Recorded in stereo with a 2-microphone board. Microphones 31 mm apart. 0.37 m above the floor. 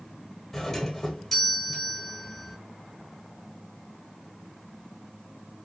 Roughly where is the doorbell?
Centre.